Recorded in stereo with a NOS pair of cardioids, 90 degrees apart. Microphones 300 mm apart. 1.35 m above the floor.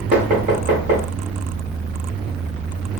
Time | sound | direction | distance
0.1 | knocking | 65° right | 1.6 m